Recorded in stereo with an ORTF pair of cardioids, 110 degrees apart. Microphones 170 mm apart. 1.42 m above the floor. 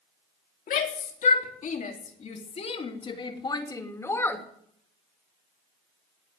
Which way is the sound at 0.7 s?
55° left.